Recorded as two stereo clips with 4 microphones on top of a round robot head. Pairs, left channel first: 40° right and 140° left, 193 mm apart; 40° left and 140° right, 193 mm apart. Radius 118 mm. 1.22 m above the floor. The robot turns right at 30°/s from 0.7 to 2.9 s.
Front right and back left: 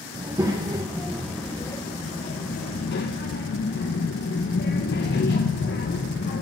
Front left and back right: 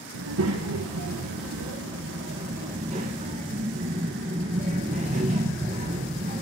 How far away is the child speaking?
About 0.9 m.